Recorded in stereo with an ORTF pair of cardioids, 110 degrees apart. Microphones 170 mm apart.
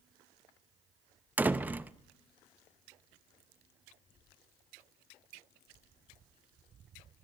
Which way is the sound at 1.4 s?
10° right.